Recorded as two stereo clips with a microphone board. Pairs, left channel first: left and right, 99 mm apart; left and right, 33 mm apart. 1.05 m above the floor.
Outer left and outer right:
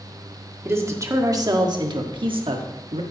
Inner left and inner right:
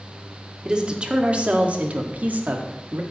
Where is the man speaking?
25° right (ahead or behind), 1.9 m; by 3.0 s 75° right (ahead or behind), 1.8 m.